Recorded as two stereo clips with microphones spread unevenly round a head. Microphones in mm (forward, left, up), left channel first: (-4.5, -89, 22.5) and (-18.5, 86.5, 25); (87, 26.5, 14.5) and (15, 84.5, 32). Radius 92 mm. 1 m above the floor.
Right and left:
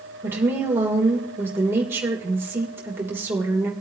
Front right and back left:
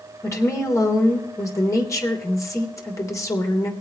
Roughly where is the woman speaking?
Ahead.